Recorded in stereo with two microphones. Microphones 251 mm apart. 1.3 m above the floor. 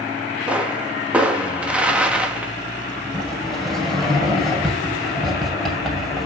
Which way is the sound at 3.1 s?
Centre (ahead or behind).